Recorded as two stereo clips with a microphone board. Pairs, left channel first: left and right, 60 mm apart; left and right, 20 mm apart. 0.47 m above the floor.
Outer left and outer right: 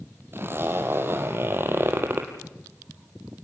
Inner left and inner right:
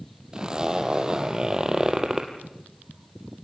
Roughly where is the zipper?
Right.